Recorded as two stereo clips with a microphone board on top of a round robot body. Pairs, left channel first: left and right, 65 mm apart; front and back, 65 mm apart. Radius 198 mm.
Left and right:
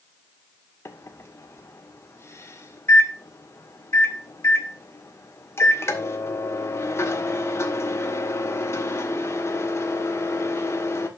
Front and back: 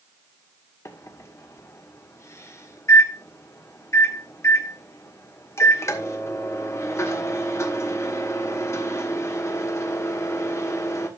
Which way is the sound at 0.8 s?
45° left.